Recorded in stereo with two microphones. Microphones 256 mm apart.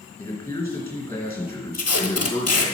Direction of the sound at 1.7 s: 75° left (ahead or behind).